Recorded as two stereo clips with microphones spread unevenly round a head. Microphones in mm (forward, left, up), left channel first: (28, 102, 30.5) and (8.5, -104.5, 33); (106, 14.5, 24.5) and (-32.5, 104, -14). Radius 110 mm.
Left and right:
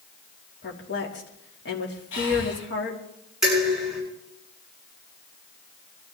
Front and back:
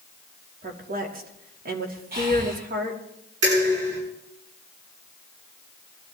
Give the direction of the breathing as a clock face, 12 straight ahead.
8 o'clock.